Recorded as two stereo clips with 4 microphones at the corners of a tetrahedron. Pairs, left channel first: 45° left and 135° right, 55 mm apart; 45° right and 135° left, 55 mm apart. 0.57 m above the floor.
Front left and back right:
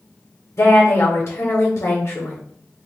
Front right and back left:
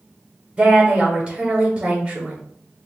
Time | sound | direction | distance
0.6 | a woman speaking | 70° left | 1.4 m